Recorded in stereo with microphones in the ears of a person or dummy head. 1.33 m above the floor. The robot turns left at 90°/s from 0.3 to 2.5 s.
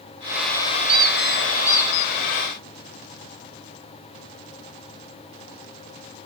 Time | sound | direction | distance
0.9 | a squeak | 145° right | 1.0 m